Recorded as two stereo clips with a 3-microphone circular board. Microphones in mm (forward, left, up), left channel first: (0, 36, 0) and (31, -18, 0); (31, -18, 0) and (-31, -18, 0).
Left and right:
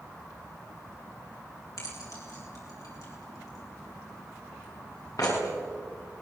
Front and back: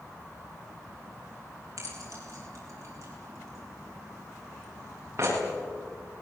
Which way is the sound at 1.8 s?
145° left.